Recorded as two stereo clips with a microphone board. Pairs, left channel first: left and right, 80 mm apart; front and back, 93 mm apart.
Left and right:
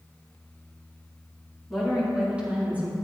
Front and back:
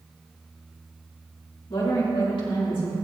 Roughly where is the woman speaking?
Ahead.